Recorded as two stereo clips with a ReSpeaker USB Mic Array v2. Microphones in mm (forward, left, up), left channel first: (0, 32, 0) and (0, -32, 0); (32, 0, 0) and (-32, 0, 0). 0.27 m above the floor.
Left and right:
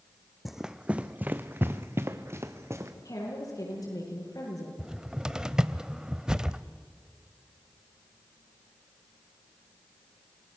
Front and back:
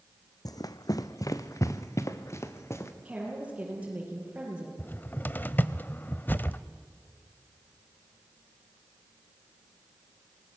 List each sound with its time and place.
0.5 s running footsteps: 5° right, 0.7 m; by 2.9 s 50° right, 2 m
3.0 s a woman speaking: 110° left, 8 m
4.8 s a cupboard door: 25° right, 0.6 m